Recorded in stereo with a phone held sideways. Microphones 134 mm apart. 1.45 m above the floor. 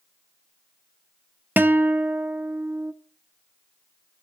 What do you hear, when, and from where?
1.6 s a guitar: 15° right (ahead or behind), 0.5 m